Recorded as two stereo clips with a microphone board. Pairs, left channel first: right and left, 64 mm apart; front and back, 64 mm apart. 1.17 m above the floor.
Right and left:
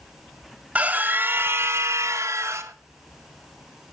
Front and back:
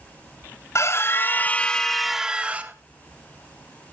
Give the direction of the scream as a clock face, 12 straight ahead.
11 o'clock.